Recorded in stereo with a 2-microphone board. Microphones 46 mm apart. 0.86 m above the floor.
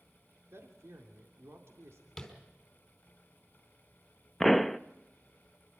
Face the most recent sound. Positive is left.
turn(degrees=0)  # may be behind; listen again after turning